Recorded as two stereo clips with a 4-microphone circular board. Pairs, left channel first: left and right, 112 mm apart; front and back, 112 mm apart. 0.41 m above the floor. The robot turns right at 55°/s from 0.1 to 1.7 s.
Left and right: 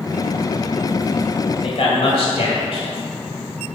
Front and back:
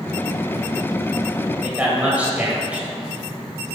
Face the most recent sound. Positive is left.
turn(degrees=105)